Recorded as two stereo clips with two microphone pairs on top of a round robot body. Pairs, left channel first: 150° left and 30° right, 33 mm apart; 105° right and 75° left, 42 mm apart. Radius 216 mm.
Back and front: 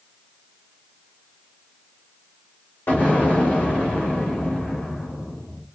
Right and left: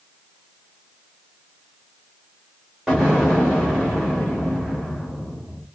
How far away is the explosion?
About 1.3 m.